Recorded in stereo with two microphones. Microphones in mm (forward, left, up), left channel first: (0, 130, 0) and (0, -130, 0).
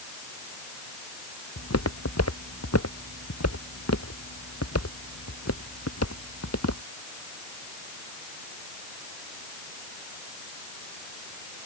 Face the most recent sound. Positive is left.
turn(degrees=80)